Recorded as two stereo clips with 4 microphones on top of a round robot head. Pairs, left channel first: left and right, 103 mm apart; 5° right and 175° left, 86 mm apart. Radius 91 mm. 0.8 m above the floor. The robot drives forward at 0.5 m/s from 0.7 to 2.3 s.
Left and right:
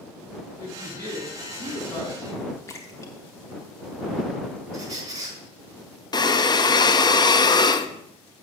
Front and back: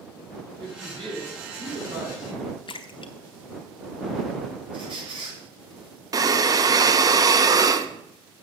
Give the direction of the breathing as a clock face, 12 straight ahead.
8 o'clock.